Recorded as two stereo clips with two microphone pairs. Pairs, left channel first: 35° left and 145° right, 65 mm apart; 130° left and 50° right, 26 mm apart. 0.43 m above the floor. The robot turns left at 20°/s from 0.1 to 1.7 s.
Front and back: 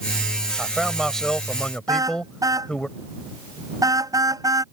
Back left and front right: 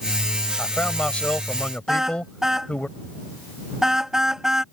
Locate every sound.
0.6 s a man speaking: 130° left; by 2.9 s 105° left
1.9 s a car horn: 120° right